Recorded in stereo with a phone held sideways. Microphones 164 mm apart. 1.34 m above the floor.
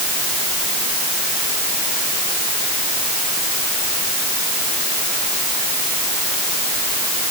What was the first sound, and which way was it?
Only background noise.